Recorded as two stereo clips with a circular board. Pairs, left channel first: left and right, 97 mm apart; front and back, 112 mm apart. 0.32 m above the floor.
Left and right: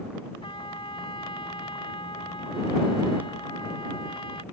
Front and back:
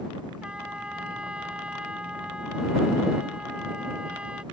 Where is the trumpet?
100° left.